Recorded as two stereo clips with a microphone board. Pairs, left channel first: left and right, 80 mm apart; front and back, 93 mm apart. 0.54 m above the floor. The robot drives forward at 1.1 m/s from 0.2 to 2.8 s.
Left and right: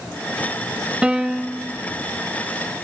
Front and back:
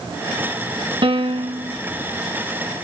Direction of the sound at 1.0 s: 165° right.